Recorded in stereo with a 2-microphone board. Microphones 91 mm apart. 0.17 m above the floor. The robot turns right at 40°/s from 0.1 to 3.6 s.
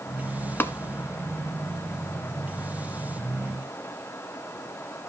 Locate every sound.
0.6 s tapping: 25° left (ahead or behind), 1.0 m; by 0.7 s 30° left (ahead or behind), 1.0 m